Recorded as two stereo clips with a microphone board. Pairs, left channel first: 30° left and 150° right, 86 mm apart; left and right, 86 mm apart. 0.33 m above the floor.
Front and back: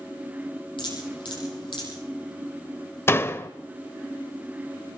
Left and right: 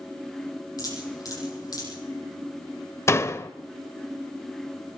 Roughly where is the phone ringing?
No phone ringing in this recording.